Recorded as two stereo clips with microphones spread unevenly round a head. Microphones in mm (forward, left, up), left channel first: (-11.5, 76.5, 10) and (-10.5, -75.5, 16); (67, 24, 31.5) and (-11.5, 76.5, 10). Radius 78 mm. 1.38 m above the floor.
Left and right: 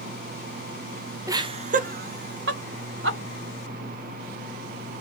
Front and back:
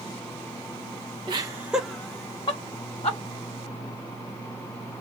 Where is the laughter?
160° right, 0.6 m; by 3.2 s 85° right, 1.2 m.